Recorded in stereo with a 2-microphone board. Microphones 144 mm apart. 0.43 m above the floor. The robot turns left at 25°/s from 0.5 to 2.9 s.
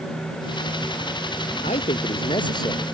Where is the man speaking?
55° left; by 2.9 s 20° left.